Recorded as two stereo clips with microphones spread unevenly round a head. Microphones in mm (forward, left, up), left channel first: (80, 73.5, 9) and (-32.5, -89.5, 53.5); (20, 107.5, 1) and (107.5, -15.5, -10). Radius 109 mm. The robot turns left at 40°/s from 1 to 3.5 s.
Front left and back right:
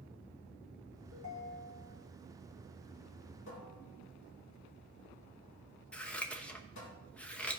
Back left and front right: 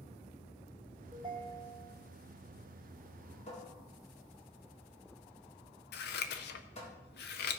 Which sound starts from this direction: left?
A cupboard door, at 3.5 s.